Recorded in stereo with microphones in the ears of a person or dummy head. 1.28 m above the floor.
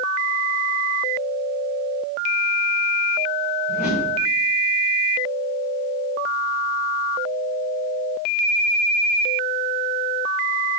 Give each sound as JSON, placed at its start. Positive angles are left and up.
{"t": 3.7, "sound": "a whoosh", "side_deg": 50, "distance_m": 3.0}